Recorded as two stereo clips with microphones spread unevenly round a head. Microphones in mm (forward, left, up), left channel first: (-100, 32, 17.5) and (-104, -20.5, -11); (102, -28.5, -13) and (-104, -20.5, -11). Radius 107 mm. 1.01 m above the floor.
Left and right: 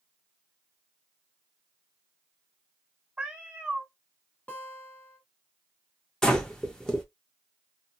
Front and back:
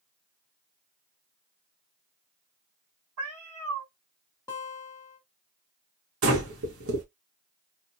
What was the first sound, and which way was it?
A cat meowing, 175° right.